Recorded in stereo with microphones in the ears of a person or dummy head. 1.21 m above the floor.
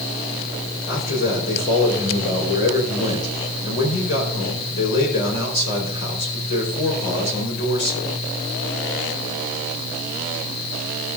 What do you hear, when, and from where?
0.9 s a man speaking: 60° left (ahead or behind), 4 m